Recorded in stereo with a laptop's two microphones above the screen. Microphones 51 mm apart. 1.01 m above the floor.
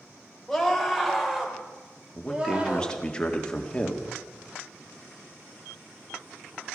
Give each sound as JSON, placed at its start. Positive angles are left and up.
{"t": 0.5, "sound": "a scream", "side_deg": 0, "distance_m": 3.5}
{"t": 2.1, "sound": "a man speaking", "side_deg": 15, "distance_m": 2.0}